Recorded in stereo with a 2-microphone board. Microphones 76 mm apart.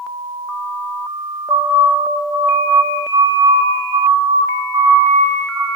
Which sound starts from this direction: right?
A siren, at 1.5 s.